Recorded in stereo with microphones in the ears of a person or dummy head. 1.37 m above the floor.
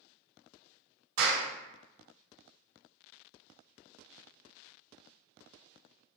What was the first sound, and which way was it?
A clap, 85° right.